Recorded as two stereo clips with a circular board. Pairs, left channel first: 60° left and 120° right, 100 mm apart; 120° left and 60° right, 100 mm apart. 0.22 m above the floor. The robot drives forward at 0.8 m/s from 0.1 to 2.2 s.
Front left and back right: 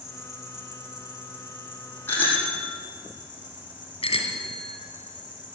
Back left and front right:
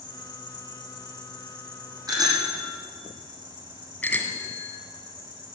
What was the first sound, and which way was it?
An insect, 155° left.